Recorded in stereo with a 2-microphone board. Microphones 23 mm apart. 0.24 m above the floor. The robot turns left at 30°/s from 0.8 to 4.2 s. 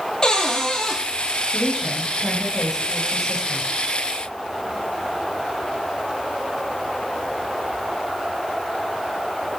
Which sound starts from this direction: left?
A cupboard door, at 0.2 s.